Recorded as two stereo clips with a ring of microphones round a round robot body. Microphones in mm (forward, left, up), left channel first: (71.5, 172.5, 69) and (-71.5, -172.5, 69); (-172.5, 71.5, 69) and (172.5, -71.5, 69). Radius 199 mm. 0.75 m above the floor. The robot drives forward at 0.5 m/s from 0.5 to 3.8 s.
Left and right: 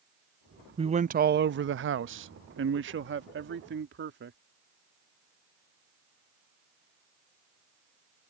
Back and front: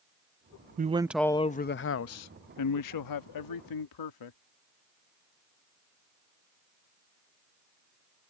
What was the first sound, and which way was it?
A man speaking, 55° right.